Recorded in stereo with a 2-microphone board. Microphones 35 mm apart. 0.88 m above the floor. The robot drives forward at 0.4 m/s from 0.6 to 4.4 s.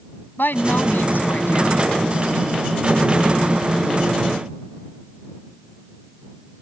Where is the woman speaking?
80° left; by 1.9 s 85° left.